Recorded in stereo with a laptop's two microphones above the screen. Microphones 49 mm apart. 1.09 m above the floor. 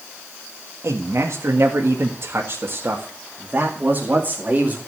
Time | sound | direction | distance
0.8 | a man speaking | 75° right (ahead or behind) | 1.8 m